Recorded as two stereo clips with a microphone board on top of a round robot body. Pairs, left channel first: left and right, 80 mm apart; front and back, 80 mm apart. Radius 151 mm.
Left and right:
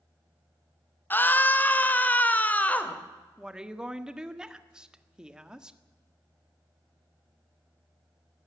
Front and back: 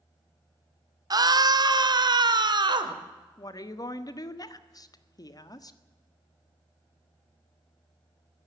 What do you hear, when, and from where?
1.1 s a scream: 150° left, 1.8 m; by 3.0 s 160° left, 3 m
3.4 s a woman speaking: 15° right, 1.7 m